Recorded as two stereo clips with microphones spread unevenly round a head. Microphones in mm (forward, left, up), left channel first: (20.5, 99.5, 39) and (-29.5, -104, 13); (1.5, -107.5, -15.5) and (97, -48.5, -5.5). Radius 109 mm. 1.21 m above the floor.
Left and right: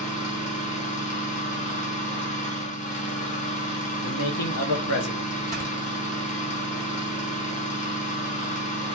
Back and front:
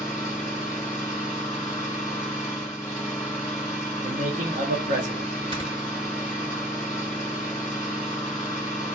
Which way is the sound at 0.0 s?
135° left.